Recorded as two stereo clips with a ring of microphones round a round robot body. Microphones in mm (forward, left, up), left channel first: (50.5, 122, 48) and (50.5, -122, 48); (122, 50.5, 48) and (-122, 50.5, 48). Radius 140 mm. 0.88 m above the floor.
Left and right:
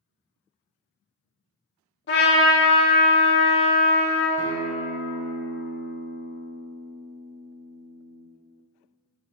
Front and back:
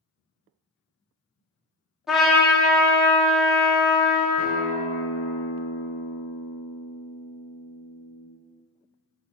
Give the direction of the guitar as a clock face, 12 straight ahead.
4 o'clock.